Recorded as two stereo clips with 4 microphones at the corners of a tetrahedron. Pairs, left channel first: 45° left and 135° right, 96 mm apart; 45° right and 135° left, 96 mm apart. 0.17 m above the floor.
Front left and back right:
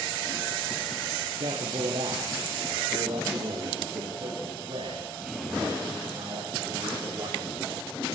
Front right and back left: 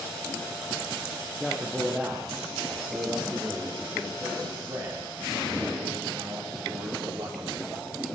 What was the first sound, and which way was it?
A man speaking, 140° right.